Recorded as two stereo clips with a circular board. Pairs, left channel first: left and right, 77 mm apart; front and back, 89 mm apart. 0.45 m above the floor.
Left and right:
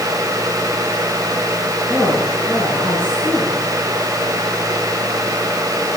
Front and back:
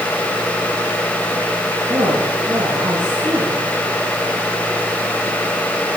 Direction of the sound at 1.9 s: 165° left.